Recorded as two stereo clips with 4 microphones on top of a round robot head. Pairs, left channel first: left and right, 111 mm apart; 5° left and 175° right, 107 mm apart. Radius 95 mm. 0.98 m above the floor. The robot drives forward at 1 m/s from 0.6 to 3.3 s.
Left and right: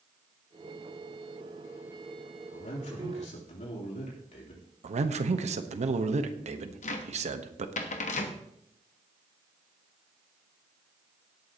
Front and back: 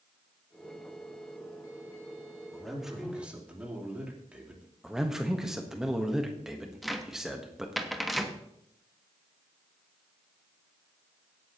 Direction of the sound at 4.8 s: 85° right.